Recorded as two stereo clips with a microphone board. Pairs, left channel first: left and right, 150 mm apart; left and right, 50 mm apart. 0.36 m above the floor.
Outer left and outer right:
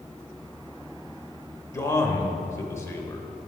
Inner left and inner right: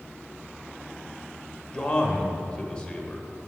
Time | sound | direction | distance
1.7 | a man speaking | 20° left (ahead or behind) | 1.0 m